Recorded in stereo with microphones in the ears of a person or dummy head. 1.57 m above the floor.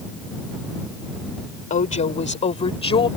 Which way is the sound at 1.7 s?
40° left (ahead or behind).